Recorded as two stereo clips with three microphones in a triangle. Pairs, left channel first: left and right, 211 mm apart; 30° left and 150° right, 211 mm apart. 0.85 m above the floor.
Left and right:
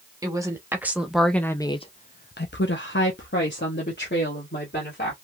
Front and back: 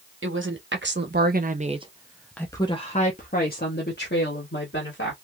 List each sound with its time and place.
0.2 s a woman speaking: 165° right, 1.2 m; by 5.1 s 50° left, 1.8 m